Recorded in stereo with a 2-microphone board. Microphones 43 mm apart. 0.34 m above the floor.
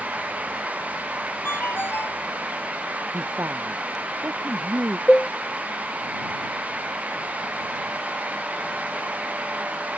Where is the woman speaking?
70° right (ahead or behind).